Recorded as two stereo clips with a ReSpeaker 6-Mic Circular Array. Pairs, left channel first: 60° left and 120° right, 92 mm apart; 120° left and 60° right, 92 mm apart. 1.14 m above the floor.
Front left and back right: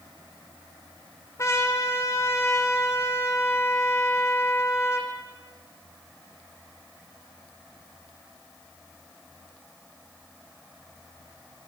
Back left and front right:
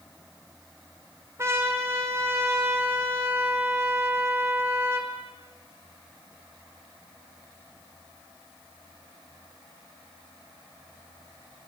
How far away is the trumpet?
About 3.5 m.